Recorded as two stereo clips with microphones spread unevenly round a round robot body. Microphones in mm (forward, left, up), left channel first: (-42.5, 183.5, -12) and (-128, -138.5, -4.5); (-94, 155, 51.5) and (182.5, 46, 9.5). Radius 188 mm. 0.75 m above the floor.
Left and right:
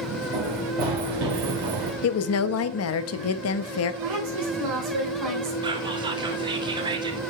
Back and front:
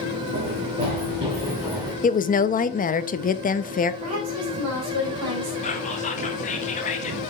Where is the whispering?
160° right, 0.8 m.